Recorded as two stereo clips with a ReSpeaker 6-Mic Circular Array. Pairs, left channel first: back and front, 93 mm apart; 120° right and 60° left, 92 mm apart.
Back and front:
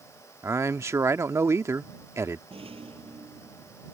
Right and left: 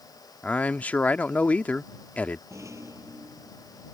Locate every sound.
0.4 s a man speaking: 50° right
2.5 s a rattle: 5° left